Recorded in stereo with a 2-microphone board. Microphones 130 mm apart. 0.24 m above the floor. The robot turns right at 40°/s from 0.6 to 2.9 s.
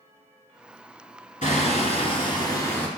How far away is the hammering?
About 1.3 m.